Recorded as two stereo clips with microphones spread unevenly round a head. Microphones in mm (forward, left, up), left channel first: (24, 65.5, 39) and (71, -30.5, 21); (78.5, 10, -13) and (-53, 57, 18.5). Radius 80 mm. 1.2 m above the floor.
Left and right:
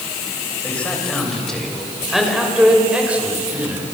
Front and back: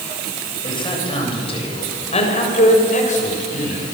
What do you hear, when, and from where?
0.6 s a man speaking: 35° left, 7.5 m; by 3.8 s 5° left, 6.5 m